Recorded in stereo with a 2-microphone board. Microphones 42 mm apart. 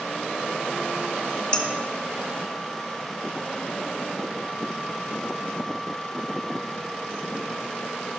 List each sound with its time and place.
1.5 s dishes clattering: 25° left (ahead or behind), 0.7 m